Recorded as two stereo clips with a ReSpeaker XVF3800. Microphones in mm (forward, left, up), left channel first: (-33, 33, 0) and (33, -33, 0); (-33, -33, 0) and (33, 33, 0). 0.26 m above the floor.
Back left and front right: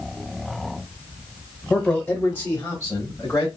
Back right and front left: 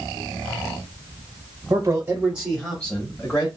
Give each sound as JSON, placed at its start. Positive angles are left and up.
{"t": 1.7, "sound": "a man speaking", "azimuth_deg": 60, "distance_m": 1.1}